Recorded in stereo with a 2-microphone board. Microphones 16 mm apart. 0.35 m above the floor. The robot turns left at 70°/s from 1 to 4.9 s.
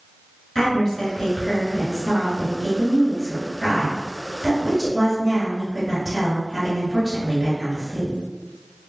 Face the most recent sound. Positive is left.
turn(degrees=-120)